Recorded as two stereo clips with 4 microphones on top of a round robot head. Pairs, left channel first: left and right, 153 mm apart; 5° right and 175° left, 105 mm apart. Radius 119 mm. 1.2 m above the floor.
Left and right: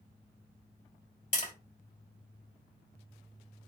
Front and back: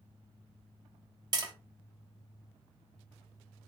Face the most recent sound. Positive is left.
turn(degrees=130)